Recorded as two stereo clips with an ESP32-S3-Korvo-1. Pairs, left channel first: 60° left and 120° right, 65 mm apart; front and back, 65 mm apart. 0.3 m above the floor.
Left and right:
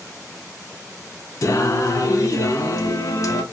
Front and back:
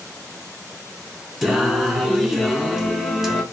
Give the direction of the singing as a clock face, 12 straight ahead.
9 o'clock.